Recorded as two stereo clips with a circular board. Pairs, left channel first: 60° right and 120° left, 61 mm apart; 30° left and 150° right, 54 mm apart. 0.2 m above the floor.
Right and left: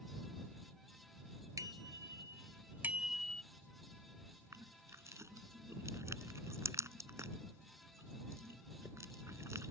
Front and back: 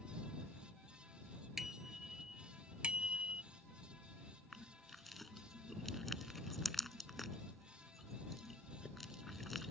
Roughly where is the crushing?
Behind left.